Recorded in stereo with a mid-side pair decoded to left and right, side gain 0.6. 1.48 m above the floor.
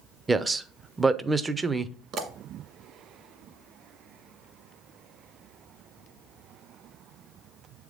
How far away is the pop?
About 1.6 m.